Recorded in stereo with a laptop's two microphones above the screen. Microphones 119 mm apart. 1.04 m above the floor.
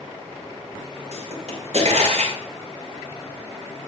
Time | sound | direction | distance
1.1 | a pop | 75° right (ahead or behind) | 5 m